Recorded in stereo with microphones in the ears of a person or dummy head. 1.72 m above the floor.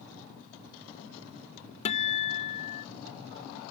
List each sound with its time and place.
1.9 s a guitar: 45° left (ahead or behind)